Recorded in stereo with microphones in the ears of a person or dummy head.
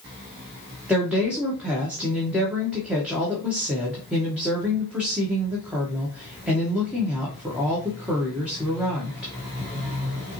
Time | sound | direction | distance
0.9 | a woman speaking | 5° right (ahead or behind) | 1.4 m